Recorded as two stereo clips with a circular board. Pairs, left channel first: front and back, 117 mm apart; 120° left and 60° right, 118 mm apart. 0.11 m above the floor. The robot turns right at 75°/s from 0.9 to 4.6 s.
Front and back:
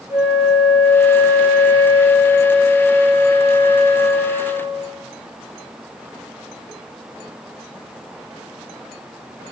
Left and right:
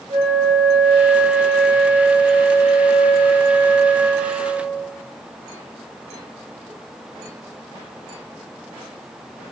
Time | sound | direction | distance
0.1 | a flute | 150° left | 1.2 m